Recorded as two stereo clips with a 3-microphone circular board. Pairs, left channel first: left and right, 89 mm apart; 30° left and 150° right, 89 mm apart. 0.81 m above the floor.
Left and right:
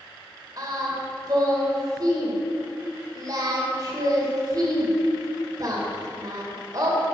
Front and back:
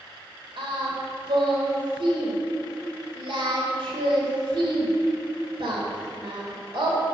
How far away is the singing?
About 2 m.